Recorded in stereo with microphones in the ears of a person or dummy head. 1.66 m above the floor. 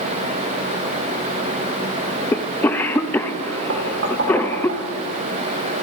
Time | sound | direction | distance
2.3 | a cough | 15° left (ahead or behind) | 0.5 m
3.7 | knocking | 60° right (ahead or behind) | 2 m